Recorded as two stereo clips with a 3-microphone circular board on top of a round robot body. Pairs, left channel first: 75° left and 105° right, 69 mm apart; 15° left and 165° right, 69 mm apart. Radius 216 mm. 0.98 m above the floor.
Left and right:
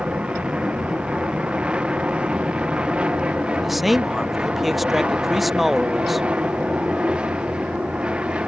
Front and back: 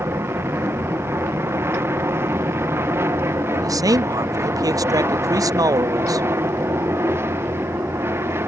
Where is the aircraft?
170° right.